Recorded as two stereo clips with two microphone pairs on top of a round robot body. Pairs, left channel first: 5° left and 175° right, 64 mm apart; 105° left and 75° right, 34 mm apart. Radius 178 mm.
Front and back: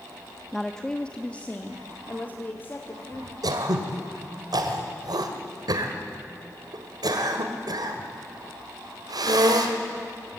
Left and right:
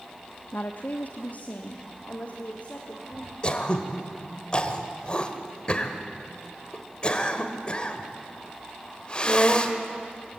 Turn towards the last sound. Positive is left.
turn(degrees=170)